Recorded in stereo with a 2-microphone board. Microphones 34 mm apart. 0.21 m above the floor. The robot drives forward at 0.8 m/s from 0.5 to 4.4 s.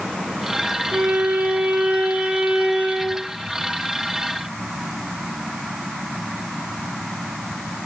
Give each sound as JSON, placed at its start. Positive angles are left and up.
{"t": 0.9, "sound": "a violin", "side_deg": -65, "distance_m": 1.4}